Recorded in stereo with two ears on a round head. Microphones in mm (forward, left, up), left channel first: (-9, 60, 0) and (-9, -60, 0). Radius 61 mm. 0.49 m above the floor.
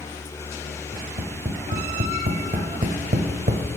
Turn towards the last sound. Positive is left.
turn(degrees=-65)  # may be behind; listen again after turning